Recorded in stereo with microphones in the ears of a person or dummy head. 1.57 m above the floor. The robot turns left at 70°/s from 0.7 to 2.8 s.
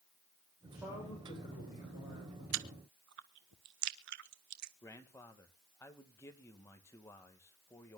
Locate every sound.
0.6 s a man speaking: 170° right, 7 m; by 2.4 s 70° left, 7 m
2.5 s chewing: 80° right, 1.2 m; by 4.7 s 60° right (ahead or behind), 1.2 m
4.8 s a man speaking: 15° left (ahead or behind), 2.0 m